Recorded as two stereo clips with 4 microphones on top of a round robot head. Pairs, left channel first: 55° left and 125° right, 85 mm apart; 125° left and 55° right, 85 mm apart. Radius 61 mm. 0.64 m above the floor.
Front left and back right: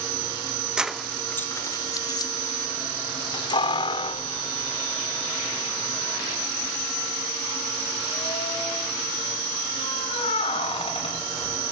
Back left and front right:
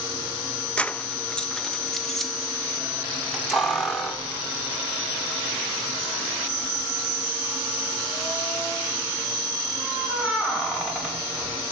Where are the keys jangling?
175° left, 0.5 m; by 11.6 s 30° left, 5.5 m.